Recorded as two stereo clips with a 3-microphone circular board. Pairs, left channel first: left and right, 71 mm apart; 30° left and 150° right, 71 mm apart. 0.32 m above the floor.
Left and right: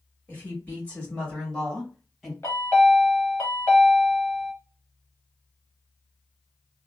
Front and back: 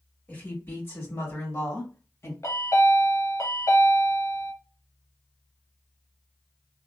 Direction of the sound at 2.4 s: 50° left.